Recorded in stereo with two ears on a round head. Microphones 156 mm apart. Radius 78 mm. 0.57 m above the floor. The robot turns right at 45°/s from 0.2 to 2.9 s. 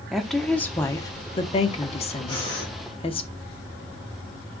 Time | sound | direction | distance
0.1 | a woman speaking | straight ahead | 0.7 m
2.3 | breathing | 25° left (ahead or behind) | 3 m